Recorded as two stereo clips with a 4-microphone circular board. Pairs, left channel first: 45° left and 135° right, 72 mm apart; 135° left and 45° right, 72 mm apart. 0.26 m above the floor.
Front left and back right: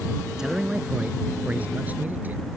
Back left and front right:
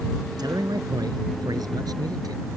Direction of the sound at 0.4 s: 50° right.